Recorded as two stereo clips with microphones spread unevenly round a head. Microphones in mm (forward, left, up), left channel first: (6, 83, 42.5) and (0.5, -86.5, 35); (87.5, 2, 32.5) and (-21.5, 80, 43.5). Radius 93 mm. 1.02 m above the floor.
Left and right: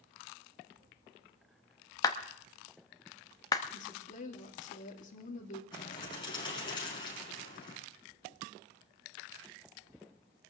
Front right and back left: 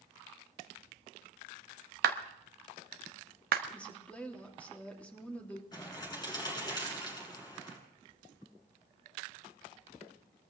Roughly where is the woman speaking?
Ahead left.